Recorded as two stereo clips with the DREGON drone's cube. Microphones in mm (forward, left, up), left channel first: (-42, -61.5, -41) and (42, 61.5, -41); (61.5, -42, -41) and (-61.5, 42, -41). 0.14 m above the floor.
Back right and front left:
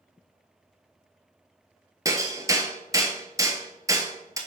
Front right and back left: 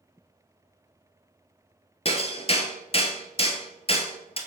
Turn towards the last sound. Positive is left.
turn(degrees=-5)